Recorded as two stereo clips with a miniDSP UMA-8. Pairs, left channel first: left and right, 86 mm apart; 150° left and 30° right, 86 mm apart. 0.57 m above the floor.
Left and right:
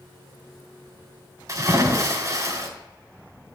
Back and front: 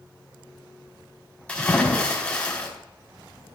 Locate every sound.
1.5 s a splash: 135° right, 3 m